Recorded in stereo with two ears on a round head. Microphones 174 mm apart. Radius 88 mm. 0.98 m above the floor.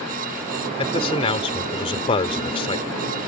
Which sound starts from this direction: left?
A man speaking, at 0.8 s.